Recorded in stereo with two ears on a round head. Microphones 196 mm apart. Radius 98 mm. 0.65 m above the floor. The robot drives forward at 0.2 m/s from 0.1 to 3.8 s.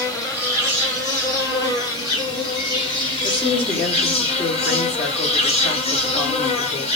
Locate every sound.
0.0 s an insect: 15° left (ahead or behind), 1.3 m; by 7.0 s 25° left (ahead or behind), 0.7 m
3.2 s a woman speaking: 10° left (ahead or behind), 1.2 m